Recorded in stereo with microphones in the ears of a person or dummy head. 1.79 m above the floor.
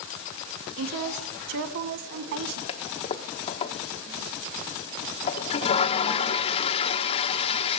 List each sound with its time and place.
0.8 s a woman speaking: 60° right (ahead or behind), 1.4 m
2.7 s a toilet flushing: 40° left (ahead or behind), 1.1 m